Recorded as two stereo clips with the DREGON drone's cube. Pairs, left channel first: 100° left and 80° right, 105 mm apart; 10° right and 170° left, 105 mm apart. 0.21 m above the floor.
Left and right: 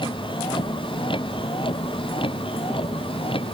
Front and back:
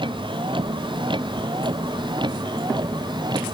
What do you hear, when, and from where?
0.0 s a vehicle: 135° left; by 3.5 s 125° left